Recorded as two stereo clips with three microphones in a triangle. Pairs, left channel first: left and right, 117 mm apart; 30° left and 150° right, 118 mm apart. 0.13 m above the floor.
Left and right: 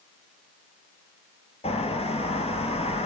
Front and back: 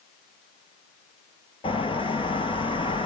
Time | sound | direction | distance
1.6 | a bird | 65° left | 1.1 m